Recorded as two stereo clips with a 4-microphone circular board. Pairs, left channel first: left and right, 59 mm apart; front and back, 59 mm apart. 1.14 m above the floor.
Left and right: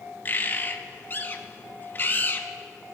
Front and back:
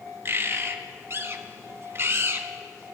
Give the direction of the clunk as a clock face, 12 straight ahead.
No clunk in this recording.